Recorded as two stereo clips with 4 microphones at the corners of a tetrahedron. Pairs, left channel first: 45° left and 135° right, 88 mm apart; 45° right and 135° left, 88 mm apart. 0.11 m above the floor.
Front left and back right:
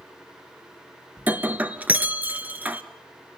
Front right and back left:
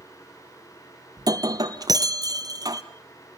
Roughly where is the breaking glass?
Behind.